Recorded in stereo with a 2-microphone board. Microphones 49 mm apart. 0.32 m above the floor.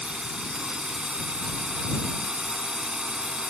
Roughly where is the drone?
Centre.